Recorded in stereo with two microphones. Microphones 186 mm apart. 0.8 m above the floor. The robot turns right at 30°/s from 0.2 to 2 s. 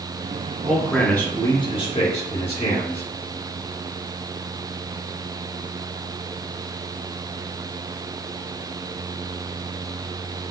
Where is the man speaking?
5° right, 1.8 m; by 3.0 s 35° left, 1.8 m.